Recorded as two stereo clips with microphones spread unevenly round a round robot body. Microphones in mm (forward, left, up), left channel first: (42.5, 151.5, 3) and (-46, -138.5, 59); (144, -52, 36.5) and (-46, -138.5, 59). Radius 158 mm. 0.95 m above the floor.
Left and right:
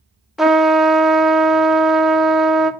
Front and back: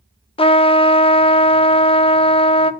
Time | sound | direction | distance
0.4 | a trumpet | straight ahead | 0.5 m